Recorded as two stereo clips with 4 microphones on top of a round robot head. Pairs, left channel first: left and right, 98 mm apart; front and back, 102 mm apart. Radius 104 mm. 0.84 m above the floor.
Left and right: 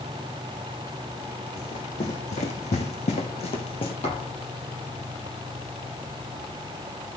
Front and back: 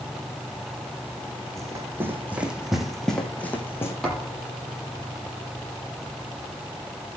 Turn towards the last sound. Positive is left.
turn(degrees=90)